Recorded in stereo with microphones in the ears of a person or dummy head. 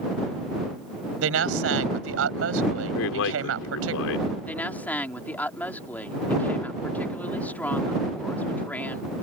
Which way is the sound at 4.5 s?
5° left (ahead or behind).